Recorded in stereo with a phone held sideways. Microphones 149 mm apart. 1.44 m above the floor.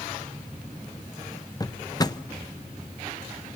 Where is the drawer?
25° left (ahead or behind), 0.6 m.